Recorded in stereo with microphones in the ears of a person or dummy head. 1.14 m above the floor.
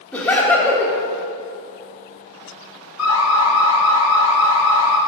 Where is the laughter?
10° left (ahead or behind), 1.1 m.